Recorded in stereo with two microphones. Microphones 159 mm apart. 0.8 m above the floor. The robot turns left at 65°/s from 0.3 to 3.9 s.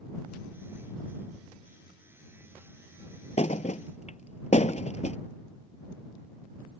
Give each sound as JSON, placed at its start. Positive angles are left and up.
{"t": 3.4, "sound": "a thud", "side_deg": 45}